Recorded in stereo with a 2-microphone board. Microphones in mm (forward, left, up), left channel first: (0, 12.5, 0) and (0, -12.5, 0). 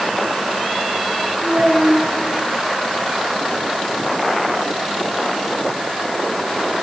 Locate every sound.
1.4 s a child speaking: 40° right (ahead or behind), 8 m